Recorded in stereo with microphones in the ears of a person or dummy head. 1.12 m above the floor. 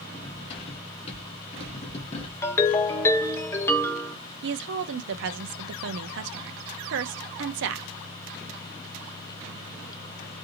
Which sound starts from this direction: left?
Cutlery clinking, at 0.1 s.